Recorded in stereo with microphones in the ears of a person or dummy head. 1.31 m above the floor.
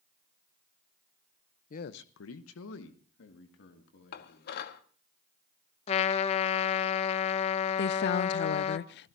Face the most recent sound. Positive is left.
turn(degrees=55)  # may be behind; listen again after turning